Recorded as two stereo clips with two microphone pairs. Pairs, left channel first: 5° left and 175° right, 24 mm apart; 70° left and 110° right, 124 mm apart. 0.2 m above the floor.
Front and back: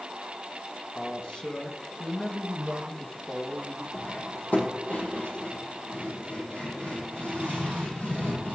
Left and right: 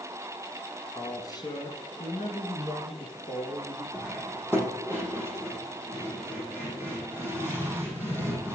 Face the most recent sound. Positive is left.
turn(degrees=-5)